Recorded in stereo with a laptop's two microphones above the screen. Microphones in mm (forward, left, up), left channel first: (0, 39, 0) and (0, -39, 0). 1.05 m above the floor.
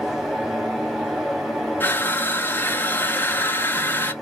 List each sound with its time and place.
0.0 s a fan: 5° right (ahead or behind), 1.0 m
1.8 s crushing: 25° left (ahead or behind), 0.7 m